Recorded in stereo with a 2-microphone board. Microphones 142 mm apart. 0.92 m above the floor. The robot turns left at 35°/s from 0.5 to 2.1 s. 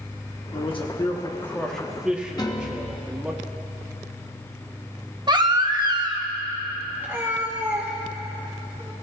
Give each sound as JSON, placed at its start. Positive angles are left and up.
{"t": 0.5, "sound": "a man speaking", "azimuth_deg": 45, "distance_m": 1.1}
{"t": 2.4, "sound": "a piano", "side_deg": 25, "distance_m": 0.9}
{"t": 5.3, "sound": "a baby crying", "side_deg": -30, "distance_m": 0.8}
{"t": 7.0, "sound": "a cat meowing", "side_deg": -15, "distance_m": 2.5}